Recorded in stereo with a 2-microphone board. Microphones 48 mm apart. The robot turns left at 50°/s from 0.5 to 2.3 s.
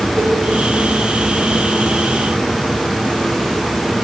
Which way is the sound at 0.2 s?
35° right (ahead or behind).